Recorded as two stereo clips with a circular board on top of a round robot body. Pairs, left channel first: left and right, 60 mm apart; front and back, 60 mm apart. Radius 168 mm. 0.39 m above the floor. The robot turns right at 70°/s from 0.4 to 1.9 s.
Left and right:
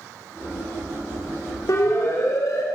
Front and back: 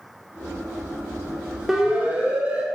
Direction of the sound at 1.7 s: 95° left.